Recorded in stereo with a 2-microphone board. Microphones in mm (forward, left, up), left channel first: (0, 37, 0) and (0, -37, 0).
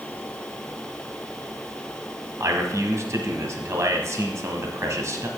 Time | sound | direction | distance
2.4 | a man speaking | 45° right (ahead or behind) | 1.3 m